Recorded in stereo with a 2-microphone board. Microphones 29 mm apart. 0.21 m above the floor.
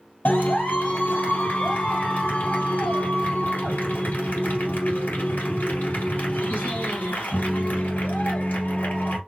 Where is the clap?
75° left (ahead or behind), 3 m.